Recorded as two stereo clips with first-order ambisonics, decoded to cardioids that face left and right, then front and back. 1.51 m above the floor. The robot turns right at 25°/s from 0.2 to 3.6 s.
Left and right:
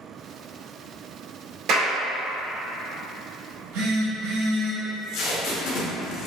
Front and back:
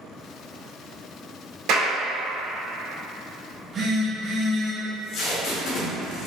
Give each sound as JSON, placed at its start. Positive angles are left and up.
{"t": 1.7, "sound": "a clap", "azimuth_deg": -140, "distance_m": 1.7}
{"t": 3.5, "sound": "a phone buzzing", "azimuth_deg": -115, "distance_m": 1.4}
{"t": 4.8, "sound": "tape being pulled", "azimuth_deg": 50, "distance_m": 1.2}